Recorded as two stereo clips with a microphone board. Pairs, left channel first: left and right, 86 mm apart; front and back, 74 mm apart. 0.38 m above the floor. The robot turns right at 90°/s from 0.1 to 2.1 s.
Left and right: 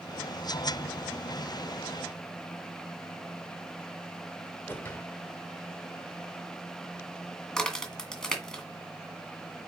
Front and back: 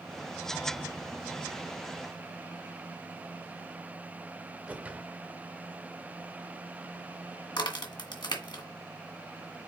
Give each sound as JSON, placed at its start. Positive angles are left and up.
{"t": 4.7, "sound": "a whoosh", "azimuth_deg": 130, "distance_m": 1.5}
{"t": 7.6, "sound": "a crack", "azimuth_deg": 10, "distance_m": 2.0}